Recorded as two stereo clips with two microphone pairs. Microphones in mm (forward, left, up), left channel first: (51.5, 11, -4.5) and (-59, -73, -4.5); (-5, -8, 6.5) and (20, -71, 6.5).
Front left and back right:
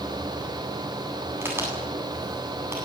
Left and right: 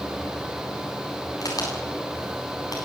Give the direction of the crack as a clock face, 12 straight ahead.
7 o'clock.